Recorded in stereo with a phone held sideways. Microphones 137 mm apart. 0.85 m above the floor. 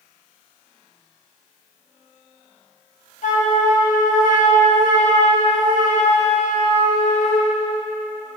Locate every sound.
3.2 s a flute: 60° left (ahead or behind), 1.1 m